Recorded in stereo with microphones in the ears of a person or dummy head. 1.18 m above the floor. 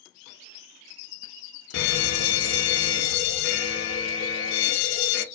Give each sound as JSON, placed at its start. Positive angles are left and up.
{"t": 1.7, "sound": "an alarm", "side_deg": 70, "distance_m": 0.7}